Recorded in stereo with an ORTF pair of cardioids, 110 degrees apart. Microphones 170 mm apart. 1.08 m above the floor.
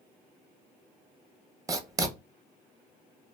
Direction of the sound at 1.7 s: 20° right.